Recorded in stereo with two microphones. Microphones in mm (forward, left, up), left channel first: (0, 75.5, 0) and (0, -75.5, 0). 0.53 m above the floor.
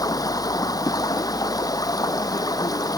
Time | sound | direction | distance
0.0 | running water | 25° left (ahead or behind) | ?